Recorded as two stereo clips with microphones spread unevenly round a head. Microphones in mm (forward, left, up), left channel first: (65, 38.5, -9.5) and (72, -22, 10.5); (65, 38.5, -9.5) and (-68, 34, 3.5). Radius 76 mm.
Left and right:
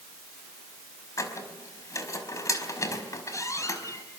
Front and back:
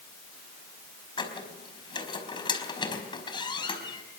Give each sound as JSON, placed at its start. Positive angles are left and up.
{"t": 1.2, "sound": "a squeak", "azimuth_deg": 60, "distance_m": 4.5}